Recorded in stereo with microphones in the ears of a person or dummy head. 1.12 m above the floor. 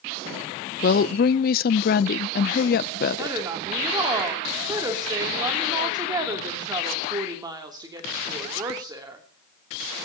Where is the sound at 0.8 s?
45° left (ahead or behind), 0.6 m.